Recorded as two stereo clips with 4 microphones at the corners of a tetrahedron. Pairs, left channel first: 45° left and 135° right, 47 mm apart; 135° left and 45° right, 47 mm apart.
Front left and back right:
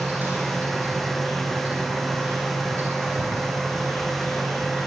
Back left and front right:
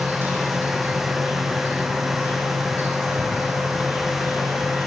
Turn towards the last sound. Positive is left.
turn(degrees=-85)